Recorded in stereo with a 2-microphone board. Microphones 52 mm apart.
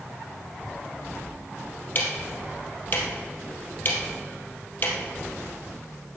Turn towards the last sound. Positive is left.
turn(degrees=40)  # may be behind; listen again after turning